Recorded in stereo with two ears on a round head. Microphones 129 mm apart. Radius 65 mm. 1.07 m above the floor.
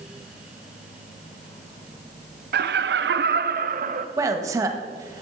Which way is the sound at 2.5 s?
70° right (ahead or behind).